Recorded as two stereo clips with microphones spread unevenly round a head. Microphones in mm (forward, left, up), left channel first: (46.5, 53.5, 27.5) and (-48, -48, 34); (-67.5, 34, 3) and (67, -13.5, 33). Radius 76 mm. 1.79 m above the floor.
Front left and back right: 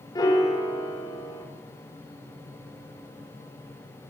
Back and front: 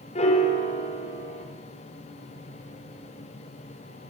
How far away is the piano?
About 5.5 m.